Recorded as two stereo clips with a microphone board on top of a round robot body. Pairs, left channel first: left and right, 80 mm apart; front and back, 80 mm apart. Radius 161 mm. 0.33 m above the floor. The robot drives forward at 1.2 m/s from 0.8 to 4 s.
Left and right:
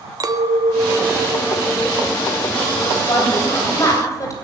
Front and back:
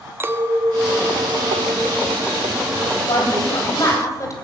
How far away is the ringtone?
I don't hear a ringtone.